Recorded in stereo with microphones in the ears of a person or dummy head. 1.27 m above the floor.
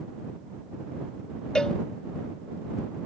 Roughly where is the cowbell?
Centre.